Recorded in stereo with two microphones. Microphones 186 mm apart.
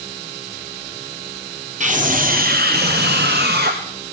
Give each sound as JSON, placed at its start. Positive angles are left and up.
{"t": 1.8, "sound": "a scream", "side_deg": -40, "distance_m": 1.1}